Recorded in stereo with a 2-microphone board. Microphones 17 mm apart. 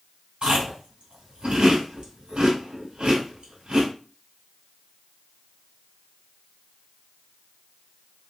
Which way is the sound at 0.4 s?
80° right.